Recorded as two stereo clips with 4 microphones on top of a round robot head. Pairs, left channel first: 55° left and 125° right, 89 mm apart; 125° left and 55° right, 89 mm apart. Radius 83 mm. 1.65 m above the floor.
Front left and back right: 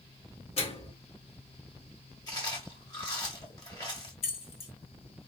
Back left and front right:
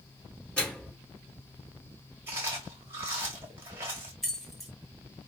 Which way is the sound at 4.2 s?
40° left.